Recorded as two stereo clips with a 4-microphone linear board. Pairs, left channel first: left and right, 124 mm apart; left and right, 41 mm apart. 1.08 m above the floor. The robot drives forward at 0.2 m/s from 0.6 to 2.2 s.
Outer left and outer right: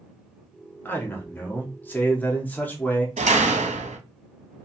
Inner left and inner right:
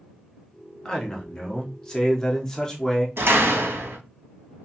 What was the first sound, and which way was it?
A man speaking, 15° left (ahead or behind).